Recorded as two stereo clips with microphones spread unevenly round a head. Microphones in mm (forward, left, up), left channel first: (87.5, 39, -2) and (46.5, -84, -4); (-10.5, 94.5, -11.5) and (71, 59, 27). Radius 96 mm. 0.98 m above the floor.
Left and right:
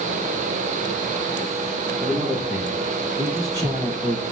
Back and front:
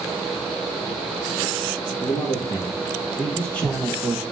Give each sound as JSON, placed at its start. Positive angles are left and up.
{"t": 2.0, "sound": "a man speaking", "azimuth_deg": 170, "distance_m": 1.7}